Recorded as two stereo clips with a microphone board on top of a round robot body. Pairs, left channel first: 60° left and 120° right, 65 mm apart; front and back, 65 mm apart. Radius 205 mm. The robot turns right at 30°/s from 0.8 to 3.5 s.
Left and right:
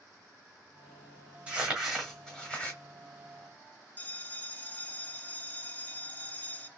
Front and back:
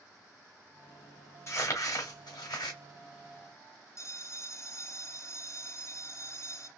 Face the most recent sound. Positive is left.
turn(degrees=5)